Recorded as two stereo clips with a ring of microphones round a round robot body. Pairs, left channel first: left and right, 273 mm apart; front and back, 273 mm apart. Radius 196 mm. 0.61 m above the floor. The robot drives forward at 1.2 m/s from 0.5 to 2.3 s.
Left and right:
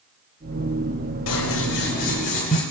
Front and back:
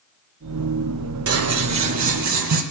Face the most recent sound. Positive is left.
turn(degrees=160)